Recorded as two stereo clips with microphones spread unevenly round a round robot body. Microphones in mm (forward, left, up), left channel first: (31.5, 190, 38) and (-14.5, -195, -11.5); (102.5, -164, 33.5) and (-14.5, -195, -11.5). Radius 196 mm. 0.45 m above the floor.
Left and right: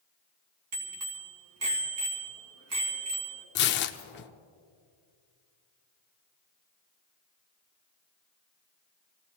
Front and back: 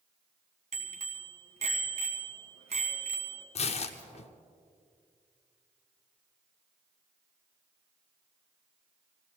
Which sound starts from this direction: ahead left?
Tearing paper, at 3.5 s.